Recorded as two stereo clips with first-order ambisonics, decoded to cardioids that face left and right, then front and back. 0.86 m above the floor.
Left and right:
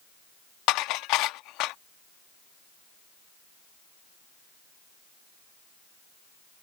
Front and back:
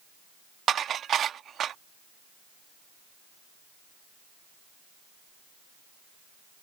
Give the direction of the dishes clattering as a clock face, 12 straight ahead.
8 o'clock.